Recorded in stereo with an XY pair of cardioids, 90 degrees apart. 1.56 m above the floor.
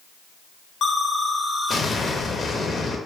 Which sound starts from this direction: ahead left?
An explosion, at 0.8 s.